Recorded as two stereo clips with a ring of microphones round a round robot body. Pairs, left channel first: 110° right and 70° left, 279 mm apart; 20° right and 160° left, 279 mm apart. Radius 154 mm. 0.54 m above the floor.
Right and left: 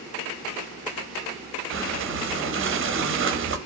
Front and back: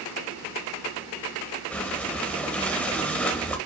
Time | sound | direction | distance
1.7 | breathing | 60° left | 0.8 m